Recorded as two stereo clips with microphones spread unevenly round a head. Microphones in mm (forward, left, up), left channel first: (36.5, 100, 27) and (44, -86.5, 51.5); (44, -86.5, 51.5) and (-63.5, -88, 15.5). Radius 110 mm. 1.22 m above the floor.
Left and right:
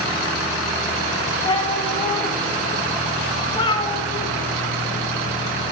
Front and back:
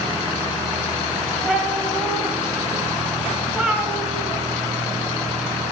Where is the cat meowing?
45° left, 1.0 m.